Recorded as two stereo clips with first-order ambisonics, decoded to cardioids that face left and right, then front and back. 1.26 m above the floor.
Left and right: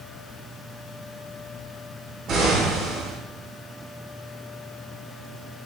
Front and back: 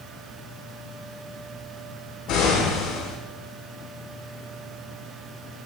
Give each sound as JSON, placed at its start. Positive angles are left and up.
{"t": 2.3, "sound": "an explosion", "azimuth_deg": -45, "distance_m": 4.0}